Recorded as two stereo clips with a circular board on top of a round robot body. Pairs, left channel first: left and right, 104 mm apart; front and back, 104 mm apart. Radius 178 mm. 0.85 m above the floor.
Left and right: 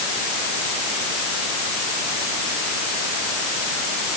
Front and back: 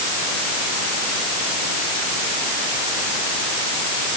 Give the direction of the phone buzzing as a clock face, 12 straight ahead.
I don't hear a phone buzzing.